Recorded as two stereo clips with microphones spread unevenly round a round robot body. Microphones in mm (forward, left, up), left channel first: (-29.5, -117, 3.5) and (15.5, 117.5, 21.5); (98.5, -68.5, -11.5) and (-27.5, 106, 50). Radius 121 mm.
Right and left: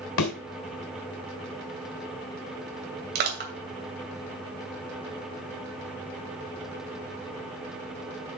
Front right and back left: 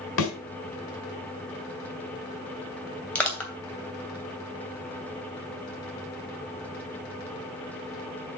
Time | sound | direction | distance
0.2 | a thud | 85° right | 3 m
3.1 | crushing | 30° left | 2.5 m